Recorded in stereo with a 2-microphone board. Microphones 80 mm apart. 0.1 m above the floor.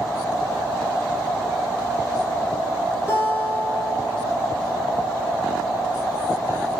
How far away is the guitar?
About 1.5 m.